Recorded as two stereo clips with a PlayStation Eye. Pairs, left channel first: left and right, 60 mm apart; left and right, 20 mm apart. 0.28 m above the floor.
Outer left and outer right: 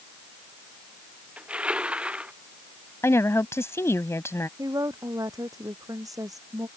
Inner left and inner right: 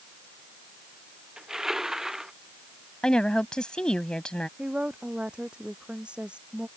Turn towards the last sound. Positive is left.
turn(degrees=-70)  # may be behind; listen again after turning